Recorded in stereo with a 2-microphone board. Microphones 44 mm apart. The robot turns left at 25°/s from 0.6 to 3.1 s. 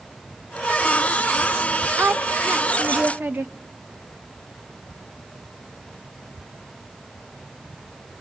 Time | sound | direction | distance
2.0 | a woman speaking | 55° right (ahead or behind) | 0.8 m